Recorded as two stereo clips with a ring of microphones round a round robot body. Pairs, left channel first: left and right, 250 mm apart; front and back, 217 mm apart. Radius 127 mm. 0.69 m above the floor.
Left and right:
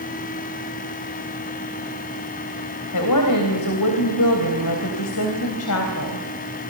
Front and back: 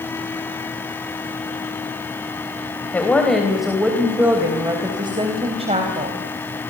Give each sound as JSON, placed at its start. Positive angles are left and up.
{"t": 2.9, "sound": "a woman speaking", "azimuth_deg": 80, "distance_m": 3.5}